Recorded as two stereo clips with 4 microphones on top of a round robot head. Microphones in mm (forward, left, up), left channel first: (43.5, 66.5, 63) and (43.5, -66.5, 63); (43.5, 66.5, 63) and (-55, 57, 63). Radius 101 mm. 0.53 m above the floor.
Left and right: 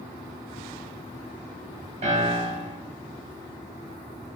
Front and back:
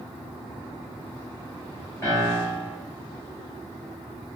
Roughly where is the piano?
Ahead right.